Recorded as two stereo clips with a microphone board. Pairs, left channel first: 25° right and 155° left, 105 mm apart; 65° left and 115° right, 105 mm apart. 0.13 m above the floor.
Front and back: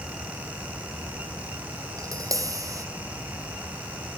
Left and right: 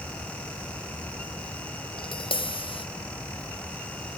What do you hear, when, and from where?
2.0 s tapping: 100° left, 1.0 m